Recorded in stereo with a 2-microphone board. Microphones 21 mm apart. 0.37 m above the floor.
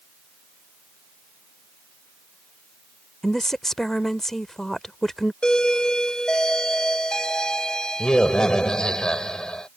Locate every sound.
3.2 s a woman speaking: 20° left (ahead or behind)
5.4 s a doorbell: 35° left (ahead or behind)